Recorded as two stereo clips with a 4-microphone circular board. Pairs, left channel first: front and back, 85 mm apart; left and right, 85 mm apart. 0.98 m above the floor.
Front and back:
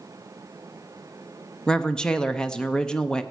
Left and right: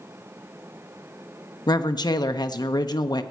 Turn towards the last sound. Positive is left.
turn(degrees=80)